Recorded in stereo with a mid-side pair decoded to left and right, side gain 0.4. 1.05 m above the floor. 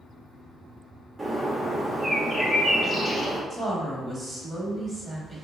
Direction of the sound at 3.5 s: 30° right.